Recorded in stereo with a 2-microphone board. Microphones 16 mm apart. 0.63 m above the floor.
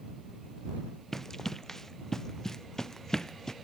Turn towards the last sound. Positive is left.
turn(degrees=40)  # may be behind; listen again after turning